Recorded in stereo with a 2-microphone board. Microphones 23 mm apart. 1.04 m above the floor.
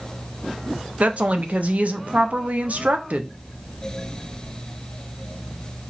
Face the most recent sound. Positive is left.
turn(degrees=-65)  # may be behind; listen again after turning